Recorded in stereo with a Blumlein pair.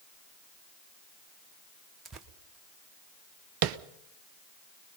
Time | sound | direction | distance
2.0 | tearing paper | 25° right | 1.2 m
3.6 | tapping | 40° right | 0.7 m